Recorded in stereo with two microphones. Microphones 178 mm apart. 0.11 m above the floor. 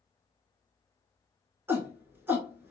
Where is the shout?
10° right (ahead or behind), 1.3 m.